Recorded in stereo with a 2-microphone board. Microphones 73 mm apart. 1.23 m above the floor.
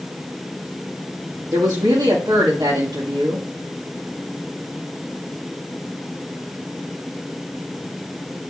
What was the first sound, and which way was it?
A woman speaking, 70° right (ahead or behind).